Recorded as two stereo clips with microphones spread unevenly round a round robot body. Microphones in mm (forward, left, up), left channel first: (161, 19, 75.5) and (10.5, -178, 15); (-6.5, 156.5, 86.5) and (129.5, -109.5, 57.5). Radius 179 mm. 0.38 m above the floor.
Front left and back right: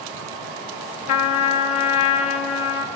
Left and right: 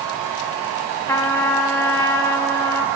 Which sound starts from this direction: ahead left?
A trumpet, at 1.1 s.